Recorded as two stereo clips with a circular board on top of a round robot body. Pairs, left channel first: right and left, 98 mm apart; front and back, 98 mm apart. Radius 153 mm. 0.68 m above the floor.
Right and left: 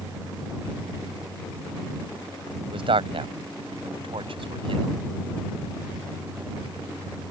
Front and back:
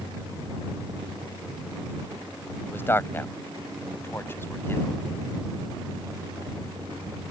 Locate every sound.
2.7 s a man speaking: 65° left